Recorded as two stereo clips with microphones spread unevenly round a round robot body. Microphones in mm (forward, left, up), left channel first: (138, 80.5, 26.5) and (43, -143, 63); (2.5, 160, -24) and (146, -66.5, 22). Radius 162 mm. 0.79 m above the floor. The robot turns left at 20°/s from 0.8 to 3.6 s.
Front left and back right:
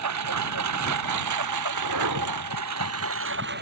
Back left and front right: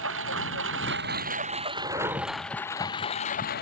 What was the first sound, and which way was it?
A lawn mower, 110° right.